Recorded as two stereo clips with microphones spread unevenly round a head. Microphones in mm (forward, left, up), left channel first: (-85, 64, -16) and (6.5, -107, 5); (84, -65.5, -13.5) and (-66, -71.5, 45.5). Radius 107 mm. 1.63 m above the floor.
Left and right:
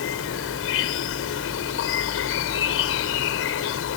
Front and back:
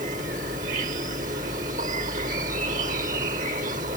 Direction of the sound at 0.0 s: 135° left.